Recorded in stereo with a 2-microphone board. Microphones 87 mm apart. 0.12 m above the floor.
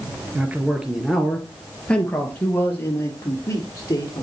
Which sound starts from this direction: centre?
A man speaking, at 0.3 s.